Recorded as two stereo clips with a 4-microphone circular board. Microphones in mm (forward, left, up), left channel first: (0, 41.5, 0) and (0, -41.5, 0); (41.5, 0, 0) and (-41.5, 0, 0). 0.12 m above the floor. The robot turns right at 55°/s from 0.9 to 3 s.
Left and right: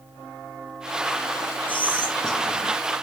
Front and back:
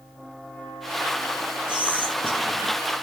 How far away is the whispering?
About 1.1 m.